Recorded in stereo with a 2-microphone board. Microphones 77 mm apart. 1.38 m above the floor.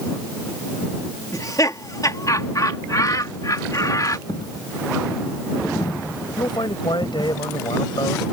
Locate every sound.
1.3 s laughter: 50° left (ahead or behind)
4.3 s a dropped coin: 65° left (ahead or behind)
6.4 s a man speaking: 85° left